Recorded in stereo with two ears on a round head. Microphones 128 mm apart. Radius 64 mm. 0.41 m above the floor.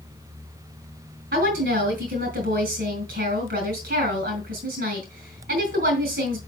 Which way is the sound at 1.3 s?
70° right (ahead or behind).